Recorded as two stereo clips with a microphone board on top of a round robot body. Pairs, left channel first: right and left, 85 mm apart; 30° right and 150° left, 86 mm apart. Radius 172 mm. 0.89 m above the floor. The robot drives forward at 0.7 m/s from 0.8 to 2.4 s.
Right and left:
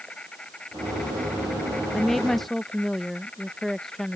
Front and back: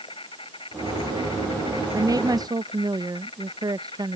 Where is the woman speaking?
175° right.